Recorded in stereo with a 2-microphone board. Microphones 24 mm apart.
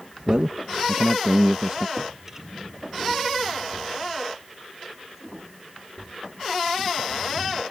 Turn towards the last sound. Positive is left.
turn(degrees=-25)  # may be behind; listen again after turning